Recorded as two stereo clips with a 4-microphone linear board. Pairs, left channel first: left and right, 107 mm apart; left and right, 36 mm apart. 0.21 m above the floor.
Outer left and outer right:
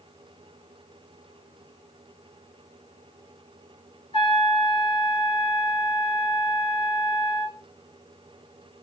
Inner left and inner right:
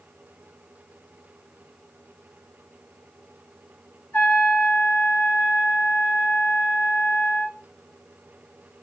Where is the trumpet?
55° left (ahead or behind), 4 m.